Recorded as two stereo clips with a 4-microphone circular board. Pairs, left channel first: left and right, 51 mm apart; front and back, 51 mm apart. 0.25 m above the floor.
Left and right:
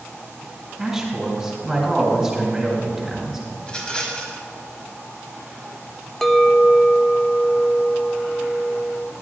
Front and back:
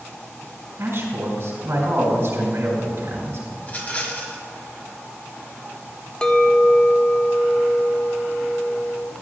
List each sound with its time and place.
0.8 s a man speaking: 175° right, 3 m
3.6 s a rattle: 30° left, 1.4 m
6.2 s a clink: 25° left, 0.5 m